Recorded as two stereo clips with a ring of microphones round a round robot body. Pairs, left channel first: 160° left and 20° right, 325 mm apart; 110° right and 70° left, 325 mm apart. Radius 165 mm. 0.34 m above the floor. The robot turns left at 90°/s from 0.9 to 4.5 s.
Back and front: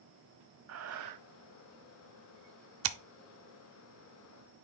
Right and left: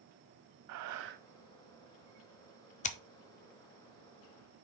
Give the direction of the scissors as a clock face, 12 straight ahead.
2 o'clock.